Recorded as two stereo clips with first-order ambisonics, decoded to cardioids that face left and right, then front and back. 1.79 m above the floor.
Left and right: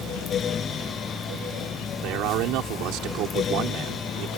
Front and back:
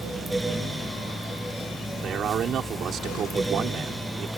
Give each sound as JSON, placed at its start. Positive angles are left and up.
{"t": 2.0, "sound": "a man speaking", "azimuth_deg": -125}